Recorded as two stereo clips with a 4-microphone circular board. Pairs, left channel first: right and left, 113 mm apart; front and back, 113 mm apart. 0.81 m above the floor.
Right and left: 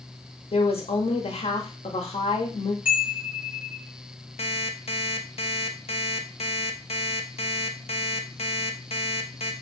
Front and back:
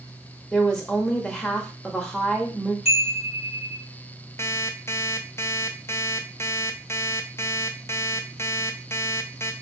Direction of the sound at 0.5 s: 85° right.